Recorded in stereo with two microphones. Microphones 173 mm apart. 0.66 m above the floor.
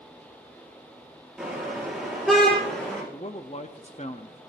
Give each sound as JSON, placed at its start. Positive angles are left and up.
{"t": 1.4, "sound": "a car horn", "side_deg": -5, "distance_m": 6.5}
{"t": 3.1, "sound": "a man speaking", "side_deg": 40, "distance_m": 0.7}